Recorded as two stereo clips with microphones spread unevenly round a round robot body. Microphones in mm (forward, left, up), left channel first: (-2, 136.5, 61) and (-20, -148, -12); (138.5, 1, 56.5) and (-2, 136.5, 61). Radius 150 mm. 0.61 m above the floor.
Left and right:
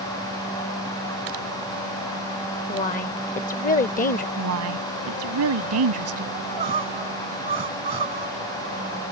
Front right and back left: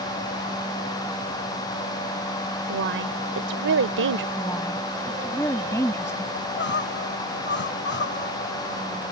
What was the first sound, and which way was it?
A woman speaking, 150° left.